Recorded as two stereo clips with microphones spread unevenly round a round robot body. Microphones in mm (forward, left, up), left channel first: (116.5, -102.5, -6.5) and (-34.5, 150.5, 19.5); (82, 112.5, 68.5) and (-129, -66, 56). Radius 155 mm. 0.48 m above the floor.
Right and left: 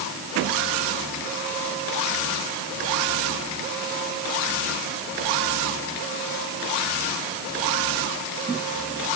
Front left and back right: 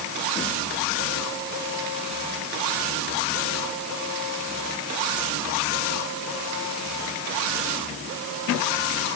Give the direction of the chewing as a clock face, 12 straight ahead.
I don't hear chewing.